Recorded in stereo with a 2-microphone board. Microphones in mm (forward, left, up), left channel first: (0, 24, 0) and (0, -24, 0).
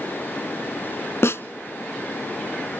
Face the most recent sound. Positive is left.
turn(degrees=60)  # may be behind; listen again after turning